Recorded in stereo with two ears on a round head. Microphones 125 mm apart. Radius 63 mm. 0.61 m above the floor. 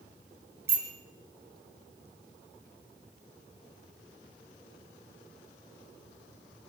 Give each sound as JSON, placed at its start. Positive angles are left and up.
{"t": 0.7, "sound": "a bicycle bell", "side_deg": -15, "distance_m": 6.5}